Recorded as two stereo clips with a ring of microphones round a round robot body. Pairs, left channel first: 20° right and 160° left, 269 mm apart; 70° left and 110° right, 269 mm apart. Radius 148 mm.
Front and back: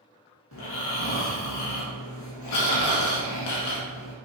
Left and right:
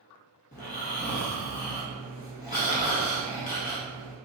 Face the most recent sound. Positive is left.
turn(degrees=5)